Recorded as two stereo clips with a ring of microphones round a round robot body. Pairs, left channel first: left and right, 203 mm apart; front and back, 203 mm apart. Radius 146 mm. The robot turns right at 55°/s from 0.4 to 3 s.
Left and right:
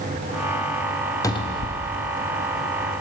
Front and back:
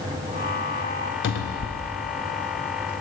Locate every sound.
1.2 s a cupboard door: 15° left, 0.6 m; by 2.0 s 55° left, 0.6 m